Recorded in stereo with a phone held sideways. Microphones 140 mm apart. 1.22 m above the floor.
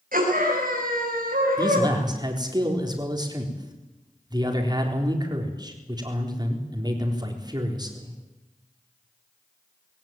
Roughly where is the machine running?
No machine running in this recording.